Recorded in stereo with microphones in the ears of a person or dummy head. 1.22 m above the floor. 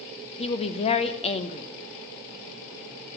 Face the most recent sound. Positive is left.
turn(degrees=30)  # may be behind; listen again after turning